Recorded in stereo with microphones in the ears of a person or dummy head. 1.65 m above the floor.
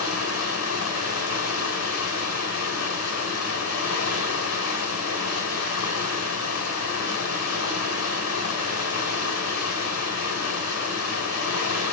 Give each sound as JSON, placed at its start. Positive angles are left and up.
{"t": 0.0, "sound": "running water", "side_deg": 70, "distance_m": 6.0}